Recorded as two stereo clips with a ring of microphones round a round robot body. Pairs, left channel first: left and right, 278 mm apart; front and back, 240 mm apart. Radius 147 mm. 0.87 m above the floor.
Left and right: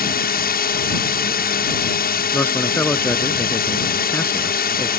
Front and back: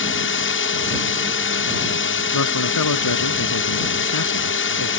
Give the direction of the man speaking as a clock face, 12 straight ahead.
12 o'clock.